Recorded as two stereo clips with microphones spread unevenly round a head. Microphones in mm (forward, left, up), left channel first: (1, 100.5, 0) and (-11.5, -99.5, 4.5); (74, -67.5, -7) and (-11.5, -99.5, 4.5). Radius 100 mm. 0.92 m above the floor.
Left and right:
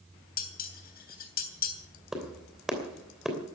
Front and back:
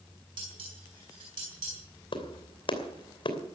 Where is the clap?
5° right, 2.5 m.